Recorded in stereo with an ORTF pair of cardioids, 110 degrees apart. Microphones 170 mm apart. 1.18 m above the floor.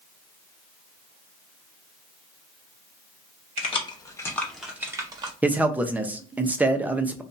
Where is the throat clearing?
I don't hear throat clearing.